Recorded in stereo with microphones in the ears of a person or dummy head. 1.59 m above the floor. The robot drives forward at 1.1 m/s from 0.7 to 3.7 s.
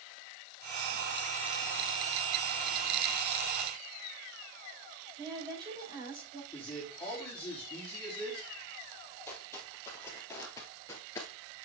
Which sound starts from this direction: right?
A woman speaking, at 5.2 s.